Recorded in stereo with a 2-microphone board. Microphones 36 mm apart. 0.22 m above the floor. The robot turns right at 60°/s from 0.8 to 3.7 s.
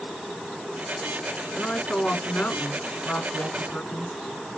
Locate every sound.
1.5 s a woman speaking: 10° left, 1.7 m; by 4.2 s 140° left, 1.7 m